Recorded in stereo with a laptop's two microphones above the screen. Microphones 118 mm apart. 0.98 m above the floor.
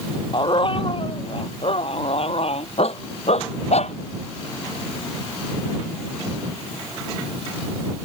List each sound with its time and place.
0.3 s a dog barking: 50° left (ahead or behind); by 4.0 s 70° left (ahead or behind)